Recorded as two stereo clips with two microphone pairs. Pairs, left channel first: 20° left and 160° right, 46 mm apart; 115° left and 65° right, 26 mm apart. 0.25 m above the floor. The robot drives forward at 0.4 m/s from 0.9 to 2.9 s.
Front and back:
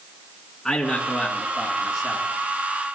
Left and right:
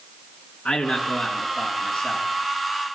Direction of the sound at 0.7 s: 95° left.